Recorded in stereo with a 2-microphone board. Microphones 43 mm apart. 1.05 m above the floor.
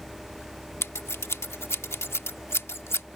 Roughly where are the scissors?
Left.